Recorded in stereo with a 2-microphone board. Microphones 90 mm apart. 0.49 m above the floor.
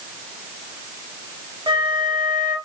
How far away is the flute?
About 1.1 m.